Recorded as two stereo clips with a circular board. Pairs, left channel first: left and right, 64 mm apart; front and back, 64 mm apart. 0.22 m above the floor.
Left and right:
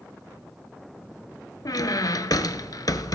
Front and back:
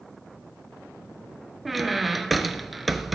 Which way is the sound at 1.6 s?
90° left.